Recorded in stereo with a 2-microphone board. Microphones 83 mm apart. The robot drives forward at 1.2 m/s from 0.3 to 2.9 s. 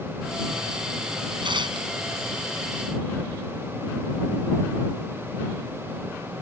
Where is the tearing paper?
80° right.